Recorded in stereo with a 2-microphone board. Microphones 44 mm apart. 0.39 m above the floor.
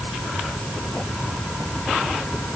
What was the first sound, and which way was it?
Only background noise.